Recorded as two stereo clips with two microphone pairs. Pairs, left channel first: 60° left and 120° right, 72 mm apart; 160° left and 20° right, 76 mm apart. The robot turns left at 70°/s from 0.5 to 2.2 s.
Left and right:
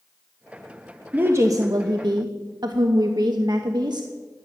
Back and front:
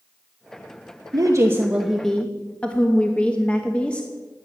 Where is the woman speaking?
55° right, 1.0 m; by 4.1 s 130° right, 1.0 m.